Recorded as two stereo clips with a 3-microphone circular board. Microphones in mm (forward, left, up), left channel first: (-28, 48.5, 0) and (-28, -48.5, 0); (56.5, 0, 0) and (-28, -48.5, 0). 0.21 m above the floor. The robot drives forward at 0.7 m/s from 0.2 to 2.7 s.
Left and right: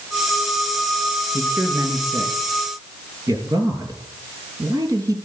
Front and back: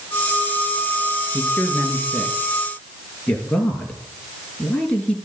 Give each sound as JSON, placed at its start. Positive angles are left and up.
{"t": 1.3, "sound": "a man speaking", "azimuth_deg": -35, "distance_m": 4.5}